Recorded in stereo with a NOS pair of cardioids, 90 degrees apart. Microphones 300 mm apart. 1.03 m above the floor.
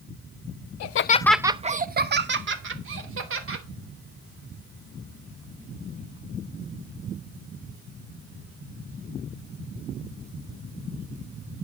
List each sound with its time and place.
0.8 s laughter: 70° left, 0.7 m; by 3.6 s 45° right, 3.5 m